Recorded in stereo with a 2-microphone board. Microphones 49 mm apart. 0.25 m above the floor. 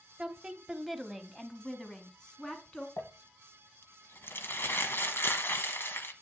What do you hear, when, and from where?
0.2 s a woman speaking: 20° right (ahead or behind), 1.0 m; by 2.9 s 20° left (ahead or behind), 2.5 m
3.0 s crumpling: 55° left (ahead or behind), 1.1 m